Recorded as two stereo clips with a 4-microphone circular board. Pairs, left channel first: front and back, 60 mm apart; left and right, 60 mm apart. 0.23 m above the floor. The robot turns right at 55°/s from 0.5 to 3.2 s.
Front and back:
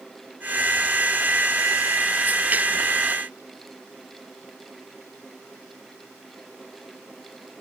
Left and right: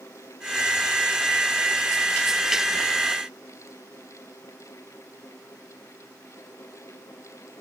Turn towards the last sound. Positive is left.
No sound to turn to.